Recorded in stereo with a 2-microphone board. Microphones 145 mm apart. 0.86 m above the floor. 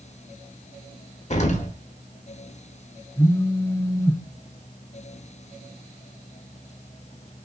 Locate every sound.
1.3 s an explosion: 50° left (ahead or behind), 1.0 m
3.2 s a phone buzzing: 25° left (ahead or behind), 0.6 m